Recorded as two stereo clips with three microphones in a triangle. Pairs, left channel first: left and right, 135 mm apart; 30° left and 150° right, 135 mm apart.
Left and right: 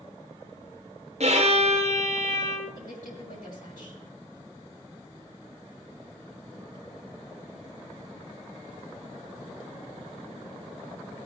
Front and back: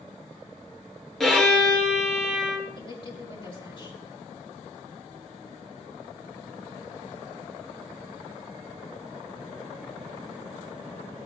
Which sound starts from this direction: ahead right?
A violin, at 1.2 s.